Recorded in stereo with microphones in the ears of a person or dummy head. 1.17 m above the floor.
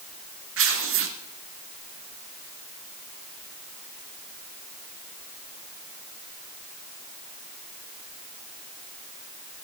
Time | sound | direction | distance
0.6 | tearing paper | 55° right (ahead or behind) | 1.0 m